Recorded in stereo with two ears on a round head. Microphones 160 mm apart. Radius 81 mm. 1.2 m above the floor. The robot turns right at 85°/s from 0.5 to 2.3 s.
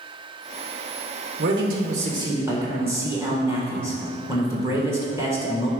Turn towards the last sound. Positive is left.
turn(degrees=-15)